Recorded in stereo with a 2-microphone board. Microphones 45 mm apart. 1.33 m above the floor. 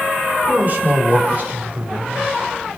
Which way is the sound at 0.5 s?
40° right (ahead or behind).